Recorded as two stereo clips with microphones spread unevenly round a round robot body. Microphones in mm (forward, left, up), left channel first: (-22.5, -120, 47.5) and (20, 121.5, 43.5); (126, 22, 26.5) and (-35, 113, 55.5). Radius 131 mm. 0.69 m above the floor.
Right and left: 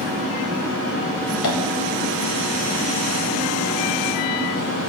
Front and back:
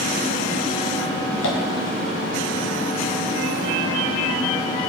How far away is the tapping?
About 1.6 m.